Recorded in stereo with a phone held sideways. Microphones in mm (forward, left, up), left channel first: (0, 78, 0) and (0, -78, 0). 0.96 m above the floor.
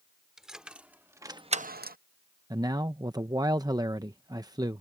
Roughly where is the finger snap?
I don't hear a finger snap.